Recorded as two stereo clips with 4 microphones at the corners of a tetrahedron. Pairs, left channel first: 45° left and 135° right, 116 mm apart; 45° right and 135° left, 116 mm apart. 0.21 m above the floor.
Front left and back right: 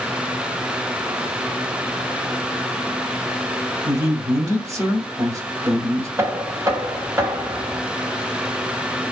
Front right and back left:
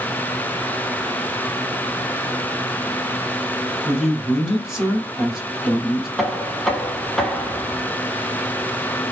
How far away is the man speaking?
About 1.3 m.